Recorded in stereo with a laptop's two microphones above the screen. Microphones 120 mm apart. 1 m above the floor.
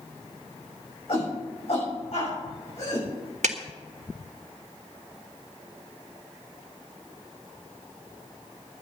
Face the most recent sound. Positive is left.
turn(degrees=-75)  # may be behind; listen again after turning